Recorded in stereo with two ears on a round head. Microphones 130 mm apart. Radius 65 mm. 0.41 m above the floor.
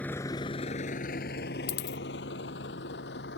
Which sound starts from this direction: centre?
A vehicle, at 0.0 s.